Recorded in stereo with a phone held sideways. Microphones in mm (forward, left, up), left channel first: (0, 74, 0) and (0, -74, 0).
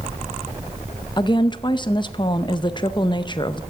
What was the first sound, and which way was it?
A woman speaking, 30° left (ahead or behind).